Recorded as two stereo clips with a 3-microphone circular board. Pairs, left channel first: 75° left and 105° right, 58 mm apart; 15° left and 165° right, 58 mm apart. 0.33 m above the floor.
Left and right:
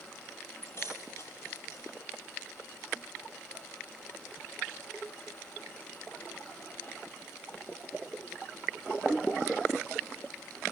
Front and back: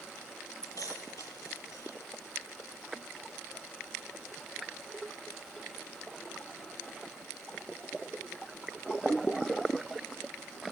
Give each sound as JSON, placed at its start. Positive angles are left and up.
{"t": 0.6, "sound": "keys jangling", "azimuth_deg": 35, "distance_m": 7.0}